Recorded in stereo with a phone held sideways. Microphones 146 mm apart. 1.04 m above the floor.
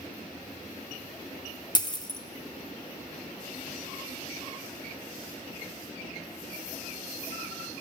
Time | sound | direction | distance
1.8 | a dropped coin | 30° left (ahead or behind) | 0.6 m